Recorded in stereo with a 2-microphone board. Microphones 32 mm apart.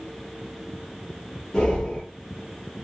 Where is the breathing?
30° left (ahead or behind), 2 m.